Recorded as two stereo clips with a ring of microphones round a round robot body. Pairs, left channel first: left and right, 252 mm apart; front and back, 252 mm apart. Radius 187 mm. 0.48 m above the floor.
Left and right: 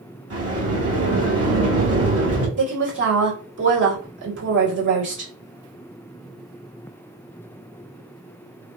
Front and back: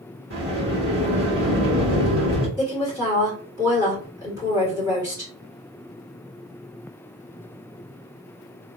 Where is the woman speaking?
110° right, 1.9 m.